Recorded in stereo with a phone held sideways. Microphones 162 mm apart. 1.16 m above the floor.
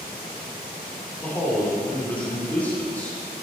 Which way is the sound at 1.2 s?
10° left (ahead or behind).